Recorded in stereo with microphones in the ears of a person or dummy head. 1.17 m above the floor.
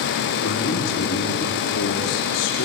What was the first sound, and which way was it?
A man speaking, 75° left (ahead or behind).